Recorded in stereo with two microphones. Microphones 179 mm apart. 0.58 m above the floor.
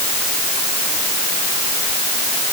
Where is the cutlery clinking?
I don't hear cutlery clinking.